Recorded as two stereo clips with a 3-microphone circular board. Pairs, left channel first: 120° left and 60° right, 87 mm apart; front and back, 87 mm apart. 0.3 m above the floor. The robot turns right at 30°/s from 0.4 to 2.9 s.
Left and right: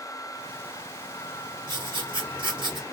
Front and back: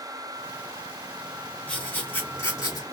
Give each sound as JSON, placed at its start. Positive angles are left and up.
{"t": 1.7, "sound": "writing", "azimuth_deg": -75, "distance_m": 3.0}